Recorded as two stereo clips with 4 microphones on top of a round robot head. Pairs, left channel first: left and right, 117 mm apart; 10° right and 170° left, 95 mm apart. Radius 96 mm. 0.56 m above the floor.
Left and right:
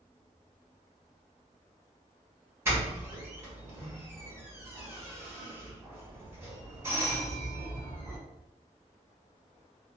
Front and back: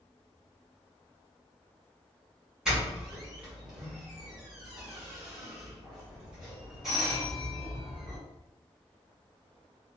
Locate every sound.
2.6 s a doorbell: 120° right, 1.4 m